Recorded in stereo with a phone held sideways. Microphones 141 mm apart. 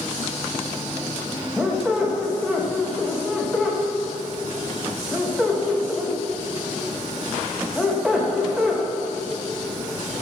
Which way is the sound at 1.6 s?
5° right (ahead or behind).